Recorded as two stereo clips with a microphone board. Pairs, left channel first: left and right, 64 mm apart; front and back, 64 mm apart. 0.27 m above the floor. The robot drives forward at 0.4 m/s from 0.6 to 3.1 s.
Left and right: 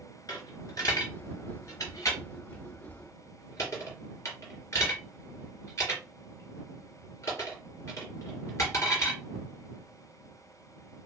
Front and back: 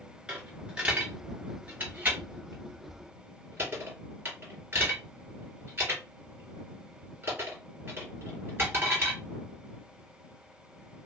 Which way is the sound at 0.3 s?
105° left.